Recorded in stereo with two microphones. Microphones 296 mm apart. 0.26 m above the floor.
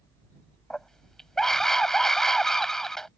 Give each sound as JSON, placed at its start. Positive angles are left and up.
{"t": 0.7, "sound": "a scream", "side_deg": 0}